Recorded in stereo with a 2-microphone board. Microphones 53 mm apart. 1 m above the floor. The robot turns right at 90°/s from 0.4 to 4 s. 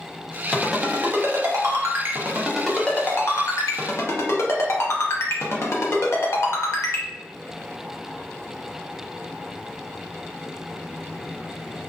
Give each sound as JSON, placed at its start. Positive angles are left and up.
{"t": 0.5, "sound": "a ringtone", "side_deg": 10, "distance_m": 0.6}